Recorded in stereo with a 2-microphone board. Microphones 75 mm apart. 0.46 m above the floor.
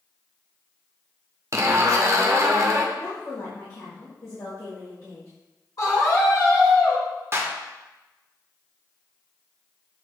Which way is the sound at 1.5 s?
45° right (ahead or behind).